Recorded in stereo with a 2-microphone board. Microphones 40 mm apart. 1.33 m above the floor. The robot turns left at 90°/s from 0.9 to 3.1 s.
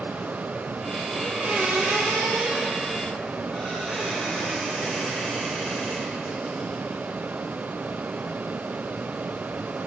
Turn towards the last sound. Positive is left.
turn(degrees=160)